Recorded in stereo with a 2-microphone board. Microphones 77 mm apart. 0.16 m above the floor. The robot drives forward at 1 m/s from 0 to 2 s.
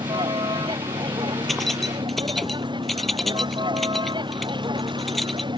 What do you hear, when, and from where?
0.0 s a vehicle: 85° right
1.5 s keys jangling: centre (ahead or behind)